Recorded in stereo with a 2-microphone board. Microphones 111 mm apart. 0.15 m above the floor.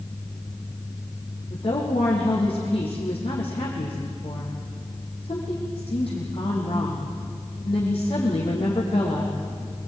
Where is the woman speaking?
60° left (ahead or behind), 6.5 m.